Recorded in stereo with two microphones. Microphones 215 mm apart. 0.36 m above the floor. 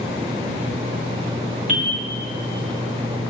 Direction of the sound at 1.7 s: 35° right (ahead or behind).